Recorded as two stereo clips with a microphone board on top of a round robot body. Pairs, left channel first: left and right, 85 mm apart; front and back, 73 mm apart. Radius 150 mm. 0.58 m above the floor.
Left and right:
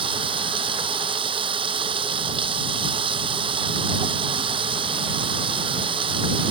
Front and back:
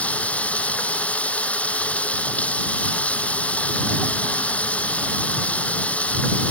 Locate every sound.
0.0 s running water: 75° right